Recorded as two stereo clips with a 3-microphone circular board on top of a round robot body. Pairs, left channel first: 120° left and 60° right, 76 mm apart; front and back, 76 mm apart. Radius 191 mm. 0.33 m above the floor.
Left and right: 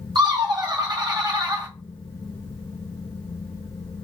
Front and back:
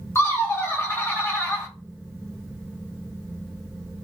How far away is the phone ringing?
I don't hear a phone ringing.